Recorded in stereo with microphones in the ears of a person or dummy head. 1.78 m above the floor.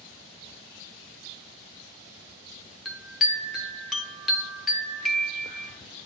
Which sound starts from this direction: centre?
A chime, at 2.9 s.